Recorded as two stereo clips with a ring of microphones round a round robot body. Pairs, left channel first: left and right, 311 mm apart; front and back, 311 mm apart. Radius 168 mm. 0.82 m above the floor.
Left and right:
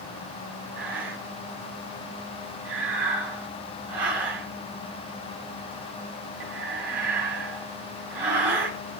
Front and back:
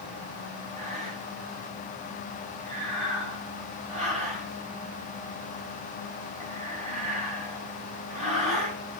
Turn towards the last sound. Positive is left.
turn(degrees=-110)